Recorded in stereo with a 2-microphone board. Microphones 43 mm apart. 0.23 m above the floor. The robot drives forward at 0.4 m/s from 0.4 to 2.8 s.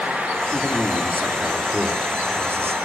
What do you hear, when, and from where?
0.5 s a man speaking: 50° right (ahead or behind), 3.5 m; by 2.8 s 60° right (ahead or behind), 3.5 m